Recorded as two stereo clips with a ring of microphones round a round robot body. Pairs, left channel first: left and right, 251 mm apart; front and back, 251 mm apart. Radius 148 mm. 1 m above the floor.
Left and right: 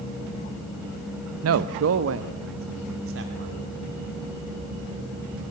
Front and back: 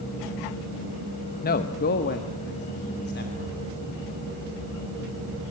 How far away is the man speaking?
About 0.7 m.